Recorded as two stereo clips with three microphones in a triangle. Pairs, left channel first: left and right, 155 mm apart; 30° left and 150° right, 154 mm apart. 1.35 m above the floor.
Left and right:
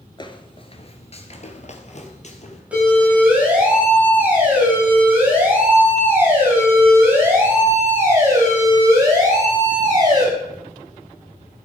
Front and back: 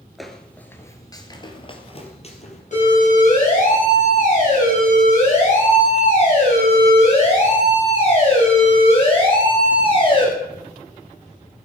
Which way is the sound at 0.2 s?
120° left.